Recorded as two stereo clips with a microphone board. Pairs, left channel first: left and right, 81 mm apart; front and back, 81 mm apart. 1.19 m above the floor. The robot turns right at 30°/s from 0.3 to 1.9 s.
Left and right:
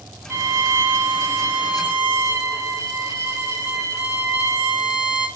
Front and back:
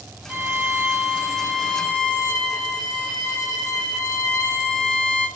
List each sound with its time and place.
0.3 s a violin: 130° right, 1.1 m; by 5.3 s 80° right, 1.1 m